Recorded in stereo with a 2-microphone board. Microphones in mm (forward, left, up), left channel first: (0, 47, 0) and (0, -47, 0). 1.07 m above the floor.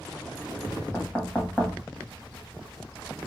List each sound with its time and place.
0.9 s knocking: 10° left (ahead or behind), 1.4 m